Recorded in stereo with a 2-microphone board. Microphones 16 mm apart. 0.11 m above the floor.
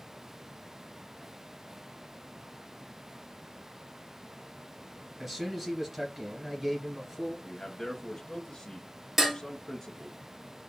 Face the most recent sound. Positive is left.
turn(degrees=-15)  # may be behind; listen again after turning